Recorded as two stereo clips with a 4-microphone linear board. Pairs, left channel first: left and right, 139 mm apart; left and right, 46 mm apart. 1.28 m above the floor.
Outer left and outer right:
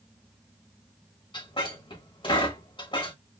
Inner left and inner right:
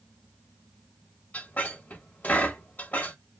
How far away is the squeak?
About 1.2 m.